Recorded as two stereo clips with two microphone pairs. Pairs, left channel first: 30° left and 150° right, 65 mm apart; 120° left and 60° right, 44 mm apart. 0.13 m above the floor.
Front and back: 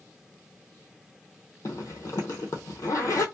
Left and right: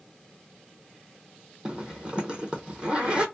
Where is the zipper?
5° left, 0.7 m.